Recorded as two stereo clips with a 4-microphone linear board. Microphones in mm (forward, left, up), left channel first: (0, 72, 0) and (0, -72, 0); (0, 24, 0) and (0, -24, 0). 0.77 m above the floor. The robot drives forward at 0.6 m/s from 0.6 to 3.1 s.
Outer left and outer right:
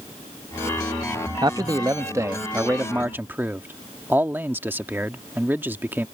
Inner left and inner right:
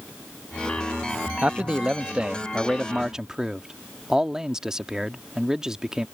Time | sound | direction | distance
1.4 | a man speaking | 30° right (ahead or behind) | ?